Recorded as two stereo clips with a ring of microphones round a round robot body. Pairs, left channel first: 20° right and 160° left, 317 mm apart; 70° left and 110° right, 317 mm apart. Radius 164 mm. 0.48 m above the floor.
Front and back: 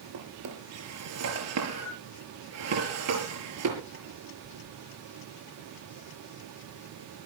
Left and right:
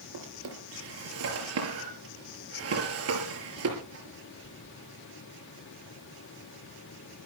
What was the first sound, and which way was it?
A drawer, 160° right.